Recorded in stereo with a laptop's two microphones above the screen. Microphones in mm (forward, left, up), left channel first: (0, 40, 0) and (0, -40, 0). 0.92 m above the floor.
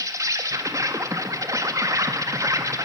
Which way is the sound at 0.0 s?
45° right (ahead or behind).